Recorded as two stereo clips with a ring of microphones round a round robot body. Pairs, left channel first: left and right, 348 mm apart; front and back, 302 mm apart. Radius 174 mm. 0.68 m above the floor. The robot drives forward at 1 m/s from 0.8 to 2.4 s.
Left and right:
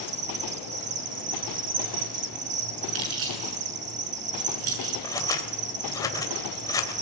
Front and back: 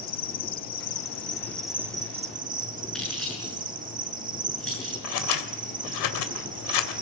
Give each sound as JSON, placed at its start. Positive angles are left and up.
{"t": 0.0, "sound": "an insect", "azimuth_deg": -45, "distance_m": 1.9}
{"t": 3.0, "sound": "keys jangling", "azimuth_deg": -90, "distance_m": 6.5}
{"t": 5.0, "sound": "scissors", "azimuth_deg": 10, "distance_m": 3.0}